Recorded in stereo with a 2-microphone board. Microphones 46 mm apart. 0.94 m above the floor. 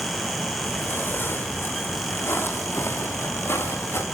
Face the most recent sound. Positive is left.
turn(degrees=70)  # may be behind; listen again after turning